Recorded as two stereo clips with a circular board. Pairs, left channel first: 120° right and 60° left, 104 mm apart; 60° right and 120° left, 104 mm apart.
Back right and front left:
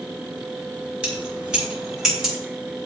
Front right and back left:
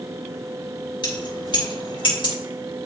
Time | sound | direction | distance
1.0 | keys jangling | 20° right | 4 m